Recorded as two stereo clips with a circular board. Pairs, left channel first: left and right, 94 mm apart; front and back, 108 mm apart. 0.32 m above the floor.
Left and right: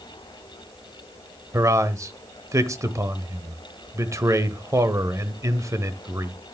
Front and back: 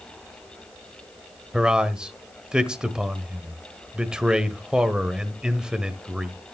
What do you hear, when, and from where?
1.5 s a man speaking: 105° right, 1.0 m